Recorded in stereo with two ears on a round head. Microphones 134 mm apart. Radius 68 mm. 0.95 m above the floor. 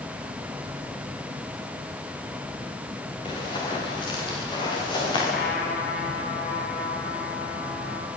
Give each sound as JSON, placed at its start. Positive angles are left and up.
{"t": 3.2, "sound": "running footsteps", "side_deg": 35, "distance_m": 9.5}
{"t": 5.3, "sound": "a trumpet", "side_deg": 70, "distance_m": 6.5}